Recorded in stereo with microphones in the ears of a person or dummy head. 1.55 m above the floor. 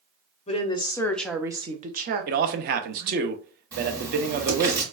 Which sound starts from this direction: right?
A man speaking, at 2.3 s.